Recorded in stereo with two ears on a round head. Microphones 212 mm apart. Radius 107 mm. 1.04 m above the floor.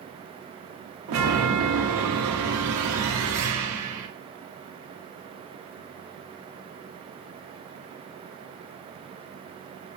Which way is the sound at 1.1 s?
60° right (ahead or behind).